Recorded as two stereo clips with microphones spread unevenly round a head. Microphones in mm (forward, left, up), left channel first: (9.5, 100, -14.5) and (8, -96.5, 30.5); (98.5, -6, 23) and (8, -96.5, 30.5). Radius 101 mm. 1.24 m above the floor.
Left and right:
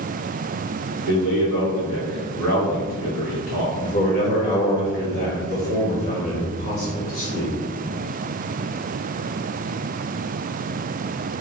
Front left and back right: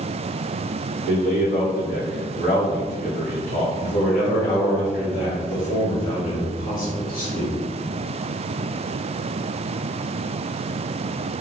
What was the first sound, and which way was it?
A man speaking, 90° left.